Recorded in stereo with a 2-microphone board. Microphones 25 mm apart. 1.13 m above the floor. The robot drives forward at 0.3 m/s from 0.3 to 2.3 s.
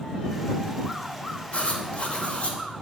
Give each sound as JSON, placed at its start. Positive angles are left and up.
{"t": 1.5, "sound": "writing", "side_deg": 60, "distance_m": 2.0}